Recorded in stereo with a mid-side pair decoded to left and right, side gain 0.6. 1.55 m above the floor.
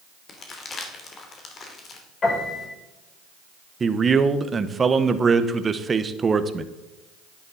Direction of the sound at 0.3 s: 40° left.